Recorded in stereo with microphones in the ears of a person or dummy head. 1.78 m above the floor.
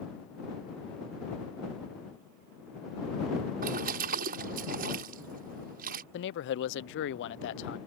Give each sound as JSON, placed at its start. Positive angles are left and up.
{"t": 3.6, "sound": "a splash", "side_deg": -45}
{"t": 6.1, "sound": "a man speaking", "side_deg": 65}